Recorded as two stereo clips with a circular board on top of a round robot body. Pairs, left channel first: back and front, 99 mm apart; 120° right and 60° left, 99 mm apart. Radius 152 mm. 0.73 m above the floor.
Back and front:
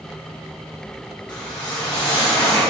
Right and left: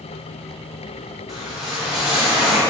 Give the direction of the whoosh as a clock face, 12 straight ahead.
7 o'clock.